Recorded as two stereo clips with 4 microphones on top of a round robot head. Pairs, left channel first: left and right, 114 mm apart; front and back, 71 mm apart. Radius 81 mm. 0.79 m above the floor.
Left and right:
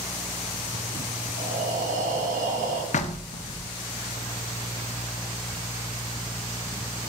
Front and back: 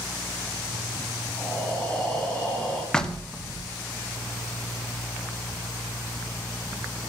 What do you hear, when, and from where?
1.4 s breathing: 85° right, 2.5 m
2.9 s knocking: 80° left, 1.3 m